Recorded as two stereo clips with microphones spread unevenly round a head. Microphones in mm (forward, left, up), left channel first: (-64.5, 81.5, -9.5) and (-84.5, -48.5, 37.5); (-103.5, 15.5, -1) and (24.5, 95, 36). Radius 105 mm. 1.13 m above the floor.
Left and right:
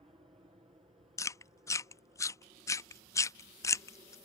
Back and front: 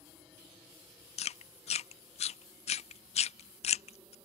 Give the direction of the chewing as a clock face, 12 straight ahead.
7 o'clock.